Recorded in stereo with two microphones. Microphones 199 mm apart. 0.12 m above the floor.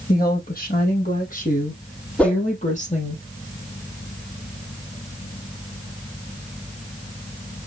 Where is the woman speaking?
50° left (ahead or behind), 4.5 m; by 3.2 s 35° left (ahead or behind), 3 m.